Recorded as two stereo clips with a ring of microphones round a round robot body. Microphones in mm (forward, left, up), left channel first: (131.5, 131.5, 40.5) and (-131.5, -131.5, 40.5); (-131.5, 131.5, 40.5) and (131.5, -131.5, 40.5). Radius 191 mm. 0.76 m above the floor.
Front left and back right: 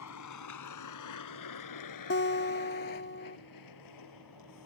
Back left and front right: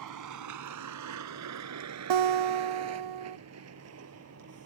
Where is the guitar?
20° right.